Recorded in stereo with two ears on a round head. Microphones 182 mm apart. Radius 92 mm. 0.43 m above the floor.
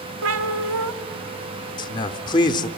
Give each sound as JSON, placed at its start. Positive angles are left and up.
{"t": 0.2, "sound": "a cat meowing", "side_deg": -80, "distance_m": 1.0}
{"t": 1.8, "sound": "a man speaking", "side_deg": 20, "distance_m": 0.8}